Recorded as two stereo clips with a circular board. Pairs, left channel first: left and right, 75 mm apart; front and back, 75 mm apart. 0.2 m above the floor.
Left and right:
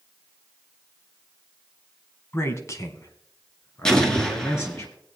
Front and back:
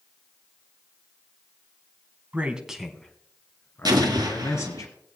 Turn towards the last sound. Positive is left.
turn(degrees=170)